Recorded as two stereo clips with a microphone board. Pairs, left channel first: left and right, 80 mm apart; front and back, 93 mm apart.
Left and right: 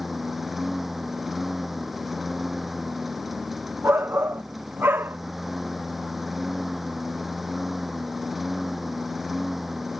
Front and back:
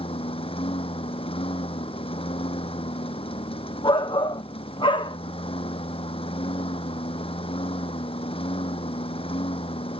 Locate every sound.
0.0 s a lawn mower: straight ahead
3.8 s a shout: 25° right